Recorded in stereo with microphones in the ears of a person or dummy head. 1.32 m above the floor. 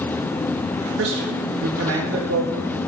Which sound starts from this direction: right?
A man speaking, at 1.0 s.